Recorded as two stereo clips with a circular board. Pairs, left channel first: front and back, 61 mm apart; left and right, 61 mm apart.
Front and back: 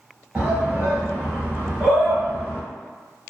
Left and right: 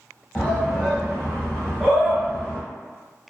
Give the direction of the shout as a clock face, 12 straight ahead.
7 o'clock.